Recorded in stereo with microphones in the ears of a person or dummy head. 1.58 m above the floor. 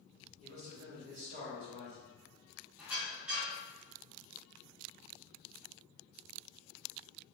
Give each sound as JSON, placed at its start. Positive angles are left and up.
{"t": 0.4, "sound": "a man speaking", "side_deg": -40, "distance_m": 1.2}
{"t": 2.8, "sound": "a squeak", "side_deg": -10, "distance_m": 1.2}